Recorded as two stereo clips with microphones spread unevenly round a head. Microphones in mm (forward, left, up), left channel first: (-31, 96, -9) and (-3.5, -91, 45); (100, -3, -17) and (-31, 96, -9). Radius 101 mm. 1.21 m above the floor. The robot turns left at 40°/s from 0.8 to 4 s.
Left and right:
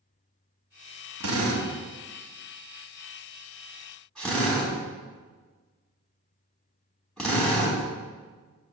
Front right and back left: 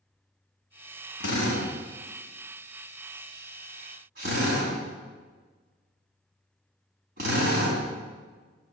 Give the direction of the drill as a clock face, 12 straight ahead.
2 o'clock.